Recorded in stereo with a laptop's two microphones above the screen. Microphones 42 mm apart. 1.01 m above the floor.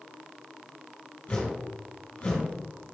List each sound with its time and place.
1.3 s a whoosh: 40° left (ahead or behind), 4 m